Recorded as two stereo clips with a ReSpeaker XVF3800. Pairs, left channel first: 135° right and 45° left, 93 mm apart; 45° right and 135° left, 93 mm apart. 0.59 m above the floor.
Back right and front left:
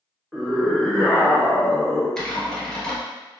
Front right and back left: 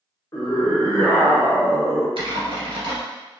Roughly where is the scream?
Ahead right.